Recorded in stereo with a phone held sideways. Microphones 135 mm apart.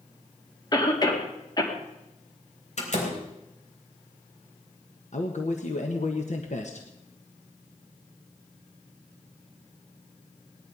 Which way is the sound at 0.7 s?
30° left (ahead or behind).